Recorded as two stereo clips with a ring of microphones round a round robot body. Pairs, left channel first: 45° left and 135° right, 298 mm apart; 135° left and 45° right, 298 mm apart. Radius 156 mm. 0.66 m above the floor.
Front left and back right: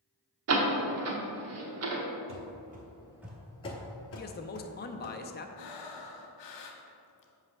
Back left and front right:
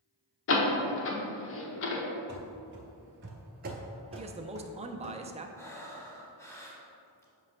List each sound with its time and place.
0.5 s a door slam: 175° right, 0.9 m
2.3 s running footsteps: 95° right, 1.0 m; by 5.2 s 40° left, 1.2 m
4.2 s a man speaking: 10° left, 0.6 m
5.6 s breathing: 55° left, 0.8 m